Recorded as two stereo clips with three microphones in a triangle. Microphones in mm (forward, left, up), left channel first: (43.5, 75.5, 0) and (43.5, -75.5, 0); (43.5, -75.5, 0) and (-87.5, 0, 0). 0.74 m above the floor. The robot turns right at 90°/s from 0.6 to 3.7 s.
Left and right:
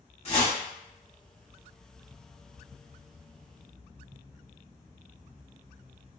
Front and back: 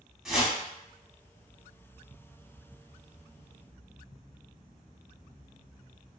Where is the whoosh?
65° left, 0.7 m.